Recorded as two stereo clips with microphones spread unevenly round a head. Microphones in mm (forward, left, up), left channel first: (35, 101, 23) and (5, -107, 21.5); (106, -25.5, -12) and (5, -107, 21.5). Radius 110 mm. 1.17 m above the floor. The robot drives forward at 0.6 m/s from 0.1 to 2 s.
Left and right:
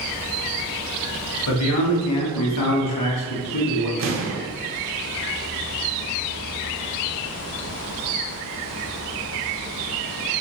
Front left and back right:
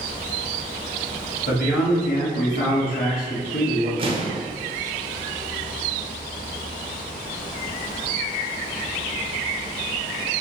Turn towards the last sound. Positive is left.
turn(degrees=-85)